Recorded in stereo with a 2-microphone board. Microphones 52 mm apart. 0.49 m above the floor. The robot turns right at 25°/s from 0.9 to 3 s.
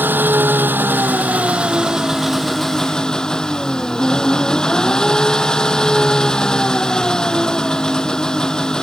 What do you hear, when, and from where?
0.0 s an engine running: 40° right; by 8.8 s 15° left